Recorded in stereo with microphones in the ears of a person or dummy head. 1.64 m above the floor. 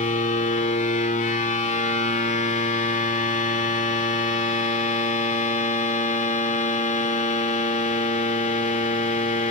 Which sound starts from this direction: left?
A machine running, at 0.0 s.